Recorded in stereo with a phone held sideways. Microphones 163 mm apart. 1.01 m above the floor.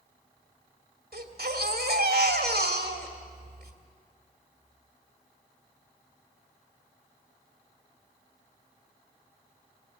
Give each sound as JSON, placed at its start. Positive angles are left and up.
{"t": 1.1, "sound": "a baby crying", "side_deg": -85, "distance_m": 2.0}